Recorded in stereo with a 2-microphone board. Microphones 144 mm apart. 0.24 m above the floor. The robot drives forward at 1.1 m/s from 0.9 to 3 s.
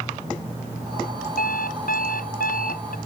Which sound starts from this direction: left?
An alarm clock, at 1.4 s.